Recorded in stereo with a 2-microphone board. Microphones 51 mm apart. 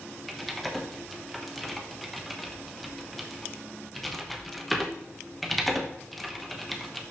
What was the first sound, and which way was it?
Typing on a keyboard, 5° left (ahead or behind).